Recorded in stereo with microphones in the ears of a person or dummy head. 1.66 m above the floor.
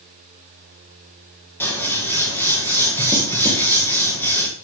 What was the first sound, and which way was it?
Scissors, 10° left (ahead or behind).